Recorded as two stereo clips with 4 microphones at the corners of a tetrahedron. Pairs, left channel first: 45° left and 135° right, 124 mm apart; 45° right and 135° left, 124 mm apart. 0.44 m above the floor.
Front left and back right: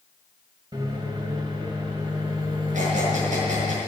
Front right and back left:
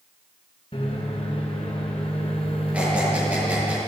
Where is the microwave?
85° right, 2.5 m.